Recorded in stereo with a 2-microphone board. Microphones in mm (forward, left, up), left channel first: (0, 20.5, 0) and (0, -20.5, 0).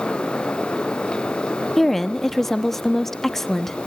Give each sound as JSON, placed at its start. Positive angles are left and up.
{"t": 1.8, "sound": "a woman speaking", "side_deg": 5, "distance_m": 1.2}